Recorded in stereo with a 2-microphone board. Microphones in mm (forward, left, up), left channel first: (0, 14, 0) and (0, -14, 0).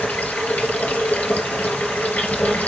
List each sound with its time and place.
0.0 s running water: 75° left (ahead or behind), 3.5 m